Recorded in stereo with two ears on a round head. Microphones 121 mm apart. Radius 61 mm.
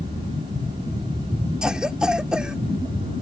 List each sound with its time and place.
1.6 s a cough: 5° right (ahead or behind)